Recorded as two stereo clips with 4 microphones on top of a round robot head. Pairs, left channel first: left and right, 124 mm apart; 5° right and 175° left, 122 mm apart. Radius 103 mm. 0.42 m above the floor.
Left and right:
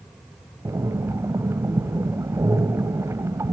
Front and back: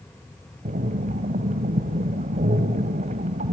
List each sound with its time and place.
0.7 s breathing: 160° right, 1.5 m